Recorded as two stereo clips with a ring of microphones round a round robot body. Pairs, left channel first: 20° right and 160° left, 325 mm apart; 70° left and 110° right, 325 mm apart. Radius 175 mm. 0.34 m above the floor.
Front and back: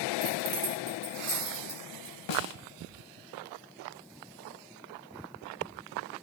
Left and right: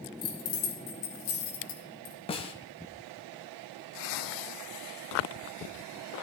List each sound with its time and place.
0.2 s keys jangling: 100° left, 4 m; by 2.1 s 70° left, 4.5 m
2.3 s a snare drum: 5° right, 1.4 m